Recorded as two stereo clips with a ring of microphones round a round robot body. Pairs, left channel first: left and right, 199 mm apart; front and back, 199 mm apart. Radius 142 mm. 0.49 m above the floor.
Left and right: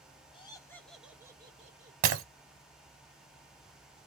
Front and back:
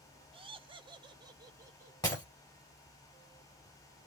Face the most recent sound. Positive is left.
turn(degrees=-80)